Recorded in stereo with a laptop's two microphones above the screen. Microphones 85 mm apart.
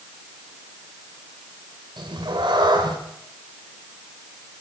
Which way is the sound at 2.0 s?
65° right (ahead or behind).